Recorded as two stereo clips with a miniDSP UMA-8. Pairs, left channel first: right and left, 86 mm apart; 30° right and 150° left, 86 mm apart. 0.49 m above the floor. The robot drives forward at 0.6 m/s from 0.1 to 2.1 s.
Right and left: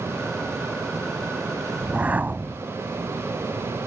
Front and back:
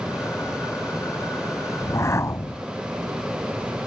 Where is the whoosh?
20° left.